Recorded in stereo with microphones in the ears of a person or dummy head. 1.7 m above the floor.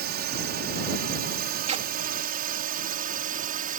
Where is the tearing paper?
35° right (ahead or behind).